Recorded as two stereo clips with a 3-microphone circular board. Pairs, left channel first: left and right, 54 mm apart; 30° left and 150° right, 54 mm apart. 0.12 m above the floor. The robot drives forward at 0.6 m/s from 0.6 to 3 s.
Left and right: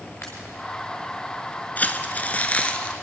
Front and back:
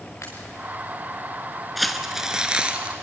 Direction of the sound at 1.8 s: 115° left.